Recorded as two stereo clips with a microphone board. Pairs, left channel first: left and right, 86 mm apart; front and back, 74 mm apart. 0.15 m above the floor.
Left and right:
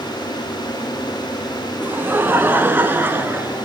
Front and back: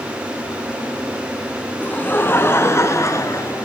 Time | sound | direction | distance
1.8 | laughter | 45° right | 1.6 m